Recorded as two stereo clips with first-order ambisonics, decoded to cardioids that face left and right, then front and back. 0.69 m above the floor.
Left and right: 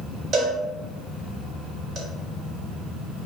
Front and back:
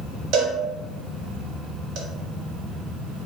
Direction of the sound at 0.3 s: 145° right.